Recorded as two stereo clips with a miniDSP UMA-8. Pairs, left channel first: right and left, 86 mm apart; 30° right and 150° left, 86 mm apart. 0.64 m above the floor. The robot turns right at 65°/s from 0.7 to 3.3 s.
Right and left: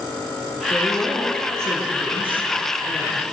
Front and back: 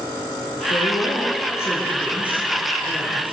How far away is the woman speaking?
About 8 m.